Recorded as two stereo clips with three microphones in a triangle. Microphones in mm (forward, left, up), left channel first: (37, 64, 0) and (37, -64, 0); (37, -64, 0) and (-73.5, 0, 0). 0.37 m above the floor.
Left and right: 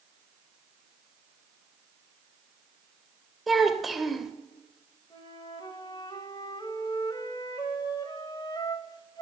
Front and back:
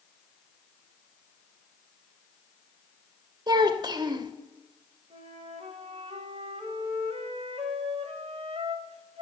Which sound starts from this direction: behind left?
A flute, at 5.1 s.